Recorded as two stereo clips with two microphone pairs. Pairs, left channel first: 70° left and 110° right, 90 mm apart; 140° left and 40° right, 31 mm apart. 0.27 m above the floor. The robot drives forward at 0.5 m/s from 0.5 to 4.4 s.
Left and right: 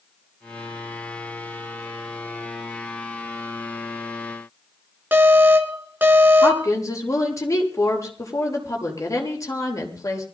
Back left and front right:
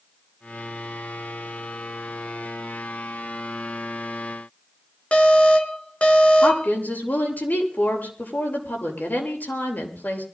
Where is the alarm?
175° right, 2.5 m.